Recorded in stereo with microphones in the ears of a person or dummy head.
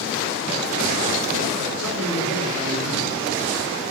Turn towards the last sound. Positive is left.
turn(degrees=-75)  # may be behind; listen again after turning